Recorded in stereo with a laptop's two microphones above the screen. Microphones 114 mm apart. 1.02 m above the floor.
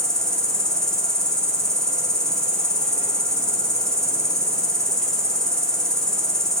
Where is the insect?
5° left (ahead or behind), 2.5 m.